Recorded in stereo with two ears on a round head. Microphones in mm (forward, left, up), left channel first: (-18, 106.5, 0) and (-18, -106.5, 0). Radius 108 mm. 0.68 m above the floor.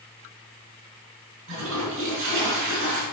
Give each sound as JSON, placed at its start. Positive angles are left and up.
{"t": 1.5, "sound": "a toilet flushing", "side_deg": -55, "distance_m": 4.0}